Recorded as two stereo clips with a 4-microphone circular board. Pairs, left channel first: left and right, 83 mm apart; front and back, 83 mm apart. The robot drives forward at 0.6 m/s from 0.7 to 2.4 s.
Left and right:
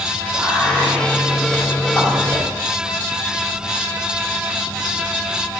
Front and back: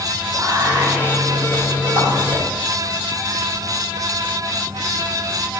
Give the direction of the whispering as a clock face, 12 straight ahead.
7 o'clock.